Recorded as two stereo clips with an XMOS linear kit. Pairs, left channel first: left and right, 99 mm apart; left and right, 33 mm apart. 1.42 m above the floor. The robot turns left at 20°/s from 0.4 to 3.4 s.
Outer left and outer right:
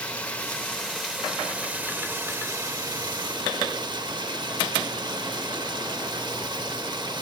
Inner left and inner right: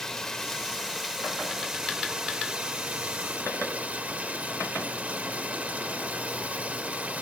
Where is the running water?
15° left, 0.8 m; by 7.2 s 45° right, 0.8 m.